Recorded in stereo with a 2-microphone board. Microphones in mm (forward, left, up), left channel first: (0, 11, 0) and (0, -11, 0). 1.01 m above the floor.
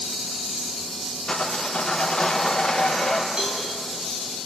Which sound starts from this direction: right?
A cowbell, at 3.4 s.